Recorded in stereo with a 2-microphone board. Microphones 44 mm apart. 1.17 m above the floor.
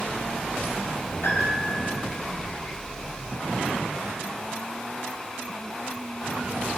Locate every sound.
1.2 s a piano: 85° left, 4 m